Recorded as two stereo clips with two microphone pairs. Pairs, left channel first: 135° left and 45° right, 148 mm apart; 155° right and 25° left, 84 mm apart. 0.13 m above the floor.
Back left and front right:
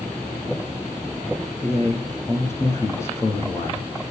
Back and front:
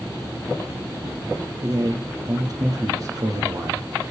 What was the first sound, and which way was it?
A man speaking, 65° left.